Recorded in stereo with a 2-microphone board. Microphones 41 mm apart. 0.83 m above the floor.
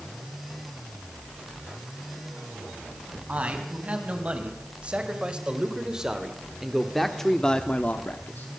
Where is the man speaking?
35° right (ahead or behind), 5 m; by 8.5 s 55° left (ahead or behind), 1.5 m.